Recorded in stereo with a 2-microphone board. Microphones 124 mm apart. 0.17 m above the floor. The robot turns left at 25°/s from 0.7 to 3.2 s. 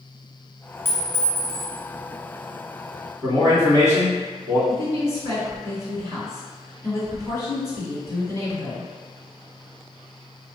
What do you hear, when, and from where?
0.8 s a clink: 20° left (ahead or behind), 1.1 m; by 1.8 s 10° left (ahead or behind), 1.1 m
3.2 s a man speaking: 25° left (ahead or behind), 1.2 m
4.7 s a woman speaking: 25° left (ahead or behind), 1.9 m